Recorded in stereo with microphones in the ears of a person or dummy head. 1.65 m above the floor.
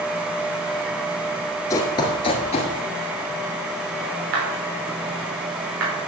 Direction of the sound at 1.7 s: 20° left (ahead or behind).